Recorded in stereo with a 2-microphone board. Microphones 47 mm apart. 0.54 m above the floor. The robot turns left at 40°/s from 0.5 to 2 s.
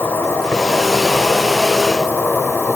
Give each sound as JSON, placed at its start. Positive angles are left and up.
{"t": 0.0, "sound": "an insect", "azimuth_deg": 120, "distance_m": 0.9}